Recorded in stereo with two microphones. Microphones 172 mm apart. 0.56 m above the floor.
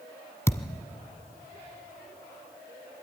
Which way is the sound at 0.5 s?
15° left (ahead or behind).